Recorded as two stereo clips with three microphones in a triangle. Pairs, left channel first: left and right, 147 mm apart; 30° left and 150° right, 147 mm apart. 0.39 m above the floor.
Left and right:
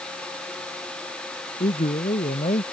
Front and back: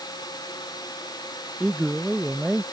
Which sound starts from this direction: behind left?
A man speaking, at 1.6 s.